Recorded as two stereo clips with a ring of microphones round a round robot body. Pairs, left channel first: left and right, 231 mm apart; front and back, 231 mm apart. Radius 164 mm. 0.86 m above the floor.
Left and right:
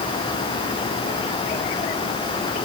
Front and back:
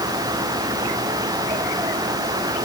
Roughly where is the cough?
I don't hear a cough.